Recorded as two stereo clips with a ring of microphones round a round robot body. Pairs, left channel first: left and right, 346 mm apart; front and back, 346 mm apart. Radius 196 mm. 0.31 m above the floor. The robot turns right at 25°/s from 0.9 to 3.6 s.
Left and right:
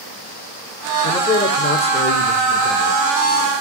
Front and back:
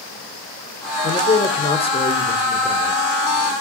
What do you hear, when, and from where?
1.0 s a man speaking: 25° left, 1.0 m; by 3.0 s 75° left, 1.0 m